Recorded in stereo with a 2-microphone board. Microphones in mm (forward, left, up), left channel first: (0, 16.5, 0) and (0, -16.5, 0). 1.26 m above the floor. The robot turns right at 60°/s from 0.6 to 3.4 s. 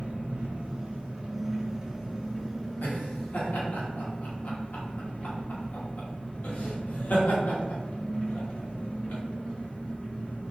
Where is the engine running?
110° right, 1.1 m; by 10.5 s 60° left, 1.1 m.